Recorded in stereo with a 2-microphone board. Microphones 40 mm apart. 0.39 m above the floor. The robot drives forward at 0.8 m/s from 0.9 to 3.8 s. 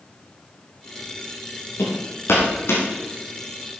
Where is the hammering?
80° left, 4.5 m; by 2.8 s 90° left, 4.5 m.